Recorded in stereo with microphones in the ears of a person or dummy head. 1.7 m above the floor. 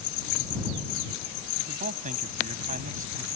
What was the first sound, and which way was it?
A man speaking, 40° right (ahead or behind).